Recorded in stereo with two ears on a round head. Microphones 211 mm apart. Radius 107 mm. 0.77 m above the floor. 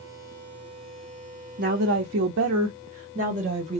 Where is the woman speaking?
45° right (ahead or behind), 0.7 m; by 3.8 s 25° right (ahead or behind), 1.2 m.